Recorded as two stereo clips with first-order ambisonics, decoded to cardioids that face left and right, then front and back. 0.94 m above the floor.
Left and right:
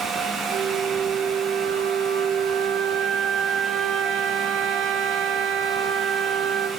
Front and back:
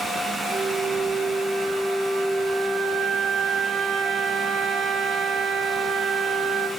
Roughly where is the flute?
Behind right.